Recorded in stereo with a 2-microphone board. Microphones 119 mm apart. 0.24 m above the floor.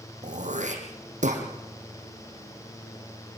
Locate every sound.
0.2 s throat clearing: 85° right, 5.5 m